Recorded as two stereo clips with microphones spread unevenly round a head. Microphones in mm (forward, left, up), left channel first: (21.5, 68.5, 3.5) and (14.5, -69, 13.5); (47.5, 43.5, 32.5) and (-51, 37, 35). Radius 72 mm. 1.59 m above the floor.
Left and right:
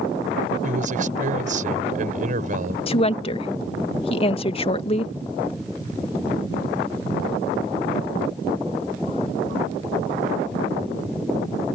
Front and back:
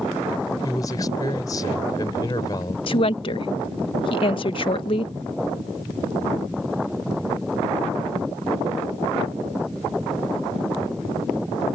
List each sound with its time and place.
0.6 s a man speaking: 60° right
2.9 s a woman speaking: 35° left